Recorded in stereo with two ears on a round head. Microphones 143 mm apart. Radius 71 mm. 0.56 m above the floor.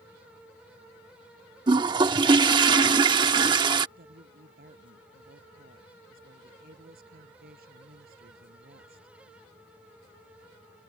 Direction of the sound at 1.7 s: 30° right (ahead or behind).